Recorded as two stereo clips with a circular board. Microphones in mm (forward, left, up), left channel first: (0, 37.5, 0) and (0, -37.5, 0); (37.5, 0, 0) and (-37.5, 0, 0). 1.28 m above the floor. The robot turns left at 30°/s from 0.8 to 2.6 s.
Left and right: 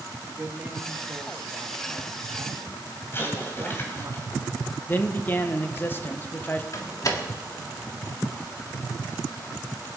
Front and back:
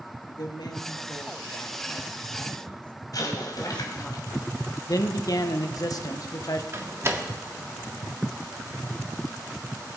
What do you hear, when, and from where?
0.3 s a woman speaking: 20° right, 2.5 m; by 4.1 s 75° right, 2.5 m
3.1 s an explosion: 35° left, 3.5 m
4.9 s a man speaking: 30° left, 1.3 m
6.7 s a door slam: 130° left, 1.7 m